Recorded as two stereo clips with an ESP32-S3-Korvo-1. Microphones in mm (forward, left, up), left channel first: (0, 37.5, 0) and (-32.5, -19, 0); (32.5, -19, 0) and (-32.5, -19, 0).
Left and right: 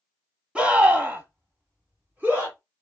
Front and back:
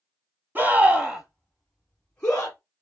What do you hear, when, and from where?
0.6 s a scream: 175° right, 1.1 m; by 2.6 s 65° right, 1.6 m